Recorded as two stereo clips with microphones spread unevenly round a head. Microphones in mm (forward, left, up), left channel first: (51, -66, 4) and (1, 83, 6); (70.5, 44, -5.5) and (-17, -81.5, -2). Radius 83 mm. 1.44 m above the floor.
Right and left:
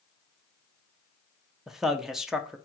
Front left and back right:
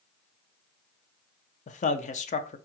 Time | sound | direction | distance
1.7 | a man speaking | 20° left | 0.6 m